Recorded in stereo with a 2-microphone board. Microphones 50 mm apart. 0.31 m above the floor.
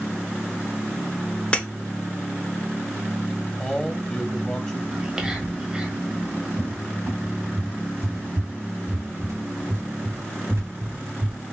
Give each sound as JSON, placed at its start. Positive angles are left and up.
{"t": 1.5, "sound": "breaking glass", "side_deg": 25, "distance_m": 0.7}
{"t": 3.6, "sound": "a man speaking", "side_deg": 15, "distance_m": 1.3}
{"t": 4.9, "sound": "whispering", "side_deg": -15, "distance_m": 1.2}
{"t": 6.6, "sound": "a cupboard door", "side_deg": -60, "distance_m": 1.1}